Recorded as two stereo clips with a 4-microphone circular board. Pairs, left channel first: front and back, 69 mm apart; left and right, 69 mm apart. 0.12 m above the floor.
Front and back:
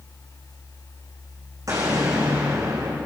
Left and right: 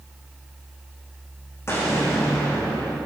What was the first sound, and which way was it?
An explosion, 140° left.